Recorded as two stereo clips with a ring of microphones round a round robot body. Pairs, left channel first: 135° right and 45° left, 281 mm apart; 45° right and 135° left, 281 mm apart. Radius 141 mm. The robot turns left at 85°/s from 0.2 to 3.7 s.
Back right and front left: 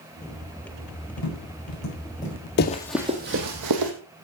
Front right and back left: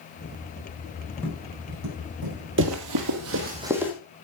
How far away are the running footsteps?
About 1.3 m.